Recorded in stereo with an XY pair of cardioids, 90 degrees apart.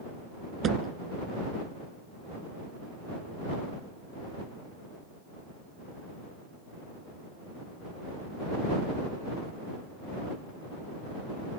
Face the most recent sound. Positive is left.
turn(degrees=-60)